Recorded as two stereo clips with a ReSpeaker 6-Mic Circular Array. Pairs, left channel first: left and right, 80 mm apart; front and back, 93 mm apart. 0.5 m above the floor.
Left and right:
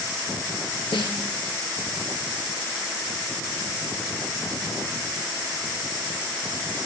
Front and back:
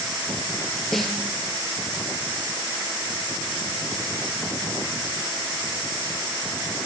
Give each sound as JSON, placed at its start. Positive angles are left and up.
{"t": 0.9, "sound": "a snare drum", "azimuth_deg": 85, "distance_m": 2.5}